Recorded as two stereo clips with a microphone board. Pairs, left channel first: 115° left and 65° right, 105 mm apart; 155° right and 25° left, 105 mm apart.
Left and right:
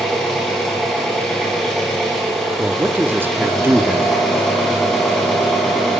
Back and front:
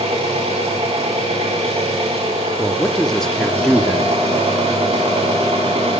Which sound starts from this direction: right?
A man speaking, at 2.6 s.